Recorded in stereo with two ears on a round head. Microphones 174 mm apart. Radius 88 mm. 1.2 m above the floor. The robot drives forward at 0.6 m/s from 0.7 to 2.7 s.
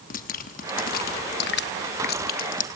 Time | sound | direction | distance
0.1 | dripping | 40° left (ahead or behind) | 1.0 m